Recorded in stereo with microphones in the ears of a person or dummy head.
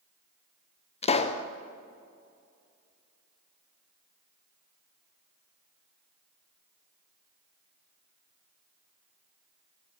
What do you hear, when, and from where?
1.0 s a pop: 35° left (ahead or behind), 0.5 m